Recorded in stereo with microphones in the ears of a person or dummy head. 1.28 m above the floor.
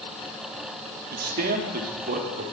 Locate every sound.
1.1 s a man speaking: 45° right (ahead or behind), 3 m; by 2.5 s 40° right (ahead or behind), 5 m